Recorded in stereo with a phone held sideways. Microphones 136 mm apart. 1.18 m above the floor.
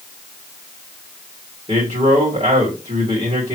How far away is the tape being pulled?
I don't hear tape being pulled.